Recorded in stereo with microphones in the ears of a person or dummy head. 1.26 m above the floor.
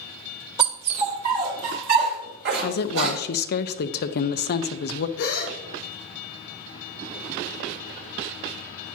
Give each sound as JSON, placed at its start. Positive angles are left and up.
{"t": 0.6, "sound": "a dog barking", "side_deg": -35, "distance_m": 1.7}
{"t": 2.6, "sound": "a woman speaking", "side_deg": 60, "distance_m": 0.8}
{"t": 5.2, "sound": "a gasp", "side_deg": 70, "distance_m": 3.5}